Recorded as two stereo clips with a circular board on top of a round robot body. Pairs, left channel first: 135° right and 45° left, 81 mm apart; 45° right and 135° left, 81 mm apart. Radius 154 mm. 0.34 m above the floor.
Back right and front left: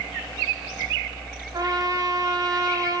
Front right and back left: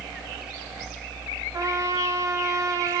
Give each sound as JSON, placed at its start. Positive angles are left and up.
{"t": 1.5, "sound": "a trumpet", "azimuth_deg": 85, "distance_m": 2.0}